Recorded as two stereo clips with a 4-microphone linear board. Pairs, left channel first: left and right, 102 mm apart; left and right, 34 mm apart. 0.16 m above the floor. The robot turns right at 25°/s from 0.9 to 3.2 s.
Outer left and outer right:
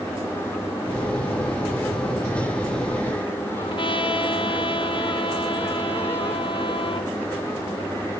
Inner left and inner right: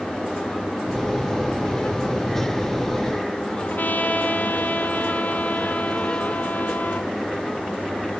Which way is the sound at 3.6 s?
55° left (ahead or behind).